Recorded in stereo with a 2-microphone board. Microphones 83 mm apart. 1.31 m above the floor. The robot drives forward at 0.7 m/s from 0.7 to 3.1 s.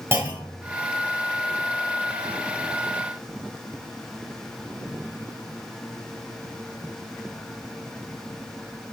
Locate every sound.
0.1 s a clunk: 30° right (ahead or behind), 3 m